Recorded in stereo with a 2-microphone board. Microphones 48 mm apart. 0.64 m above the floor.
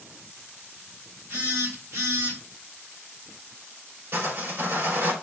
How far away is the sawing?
About 2.5 m.